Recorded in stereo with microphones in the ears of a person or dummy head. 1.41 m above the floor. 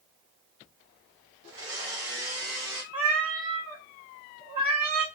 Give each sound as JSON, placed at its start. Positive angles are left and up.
{"t": 1.5, "sound": "a blender", "side_deg": -70, "distance_m": 2.0}
{"t": 2.9, "sound": "a cat meowing", "side_deg": -45, "distance_m": 1.1}